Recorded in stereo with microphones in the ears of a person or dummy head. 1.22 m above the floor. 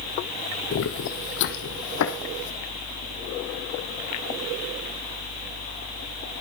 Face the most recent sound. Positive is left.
turn(degrees=70)  # may be behind; listen again after turning